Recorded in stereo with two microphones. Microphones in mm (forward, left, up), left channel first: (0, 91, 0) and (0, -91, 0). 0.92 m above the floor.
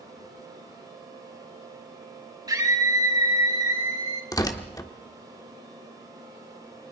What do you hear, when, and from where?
2.5 s a scream: 20° right (ahead or behind), 4.5 m; by 4.2 s 25° right (ahead or behind), 5.5 m
4.3 s tearing paper: 20° left (ahead or behind), 1.5 m